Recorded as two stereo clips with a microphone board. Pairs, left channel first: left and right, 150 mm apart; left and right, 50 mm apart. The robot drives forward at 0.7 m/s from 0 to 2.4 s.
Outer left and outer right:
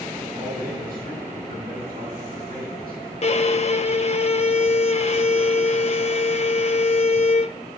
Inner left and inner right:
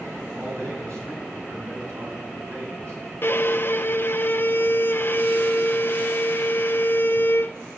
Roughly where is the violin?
Left.